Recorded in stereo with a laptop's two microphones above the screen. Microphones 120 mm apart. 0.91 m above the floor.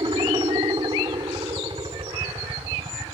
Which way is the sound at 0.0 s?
40° right (ahead or behind).